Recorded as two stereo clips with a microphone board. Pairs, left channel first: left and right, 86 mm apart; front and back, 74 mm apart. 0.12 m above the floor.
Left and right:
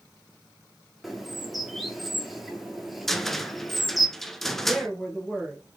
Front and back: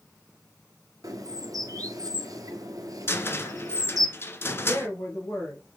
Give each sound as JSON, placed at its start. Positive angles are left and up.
{"t": 1.0, "sound": "a bird", "azimuth_deg": 180, "distance_m": 0.7}
{"t": 3.1, "sound": "a cupboard door", "azimuth_deg": 5, "distance_m": 0.6}
{"t": 4.6, "sound": "a woman speaking", "azimuth_deg": 5, "distance_m": 1.9}